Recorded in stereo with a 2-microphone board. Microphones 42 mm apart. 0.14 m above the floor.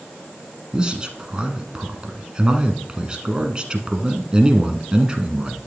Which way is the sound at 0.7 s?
20° right (ahead or behind).